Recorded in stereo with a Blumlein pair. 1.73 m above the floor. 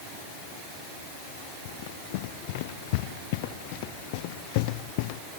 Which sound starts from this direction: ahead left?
Running footsteps, at 1.6 s.